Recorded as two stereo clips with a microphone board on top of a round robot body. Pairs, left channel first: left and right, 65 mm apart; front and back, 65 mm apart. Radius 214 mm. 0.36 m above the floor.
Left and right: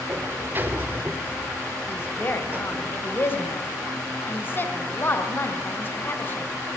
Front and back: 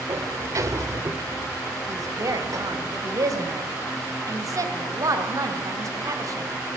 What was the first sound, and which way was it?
A sliding door, 145° right.